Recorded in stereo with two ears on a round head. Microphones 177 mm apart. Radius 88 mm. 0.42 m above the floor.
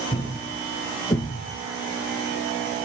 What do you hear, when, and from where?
0.1 s a thud: 25° left (ahead or behind), 1.8 m